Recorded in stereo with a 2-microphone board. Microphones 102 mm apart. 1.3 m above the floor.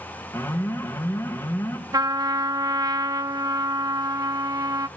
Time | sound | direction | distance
0.3 | an alarm | 25° left (ahead or behind) | 3 m
1.9 | a trumpet | 40° right (ahead or behind) | 0.9 m